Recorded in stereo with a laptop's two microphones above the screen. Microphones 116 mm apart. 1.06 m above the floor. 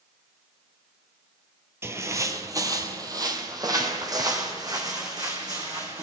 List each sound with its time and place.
1.8 s footsteps: 20° right (ahead or behind), 1.1 m; by 6.0 s 35° right (ahead or behind), 3.5 m